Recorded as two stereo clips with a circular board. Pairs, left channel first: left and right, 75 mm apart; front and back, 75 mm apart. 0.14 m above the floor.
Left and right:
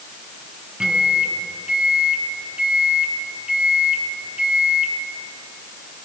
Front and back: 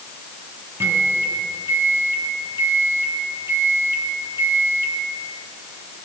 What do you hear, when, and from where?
0.8 s a microwave: 160° right, 1.3 m